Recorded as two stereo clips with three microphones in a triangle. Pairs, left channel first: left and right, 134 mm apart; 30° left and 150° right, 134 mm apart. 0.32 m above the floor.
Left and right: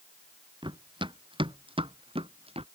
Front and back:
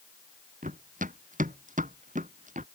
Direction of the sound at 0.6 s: 145° right.